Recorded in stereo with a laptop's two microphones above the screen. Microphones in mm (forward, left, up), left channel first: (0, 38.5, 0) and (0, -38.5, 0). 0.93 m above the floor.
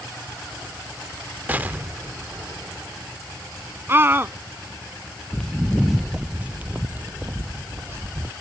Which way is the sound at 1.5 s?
20° right (ahead or behind).